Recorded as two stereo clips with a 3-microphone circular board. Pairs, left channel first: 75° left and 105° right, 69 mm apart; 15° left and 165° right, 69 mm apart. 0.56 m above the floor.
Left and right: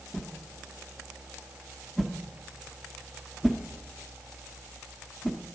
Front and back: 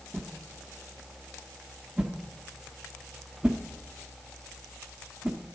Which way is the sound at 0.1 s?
155° left.